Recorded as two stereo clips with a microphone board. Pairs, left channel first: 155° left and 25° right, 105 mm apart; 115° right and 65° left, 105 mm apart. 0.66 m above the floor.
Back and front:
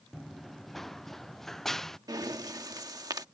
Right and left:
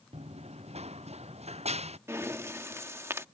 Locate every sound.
0.1 s running footsteps: 70° left
2.1 s breathing: 15° left